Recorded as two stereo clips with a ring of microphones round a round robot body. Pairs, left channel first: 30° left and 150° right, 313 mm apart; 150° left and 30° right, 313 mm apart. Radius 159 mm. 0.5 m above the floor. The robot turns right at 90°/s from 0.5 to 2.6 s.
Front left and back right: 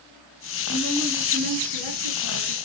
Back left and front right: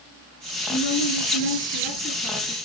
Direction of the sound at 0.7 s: 85° left.